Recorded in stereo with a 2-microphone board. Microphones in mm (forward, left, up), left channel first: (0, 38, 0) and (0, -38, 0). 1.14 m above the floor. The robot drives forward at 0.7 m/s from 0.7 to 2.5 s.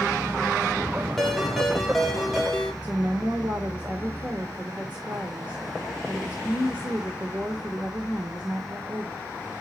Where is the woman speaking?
20° right (ahead or behind), 1.2 m.